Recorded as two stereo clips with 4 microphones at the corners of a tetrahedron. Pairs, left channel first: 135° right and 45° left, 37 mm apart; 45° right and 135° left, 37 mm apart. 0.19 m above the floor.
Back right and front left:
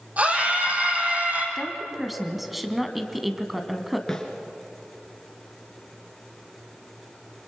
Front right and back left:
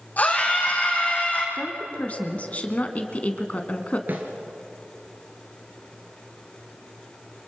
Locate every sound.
0.2 s a scream: straight ahead, 9 m
1.6 s a woman speaking: 40° right, 1.8 m
4.1 s a snare drum: 150° left, 3 m